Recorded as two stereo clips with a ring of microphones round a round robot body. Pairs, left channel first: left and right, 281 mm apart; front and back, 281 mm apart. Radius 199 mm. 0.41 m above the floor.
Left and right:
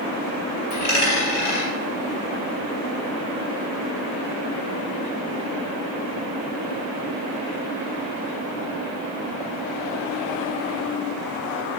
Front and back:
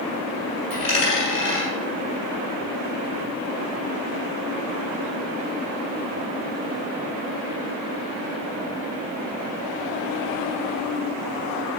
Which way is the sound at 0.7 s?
70° left.